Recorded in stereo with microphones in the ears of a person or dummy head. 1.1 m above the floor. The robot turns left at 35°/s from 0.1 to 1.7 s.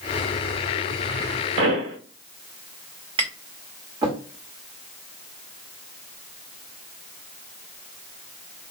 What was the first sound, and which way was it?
A pop, 70° right (ahead or behind).